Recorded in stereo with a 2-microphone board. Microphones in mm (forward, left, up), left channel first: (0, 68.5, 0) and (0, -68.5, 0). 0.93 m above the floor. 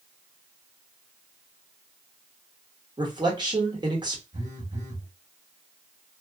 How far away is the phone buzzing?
About 1.2 m.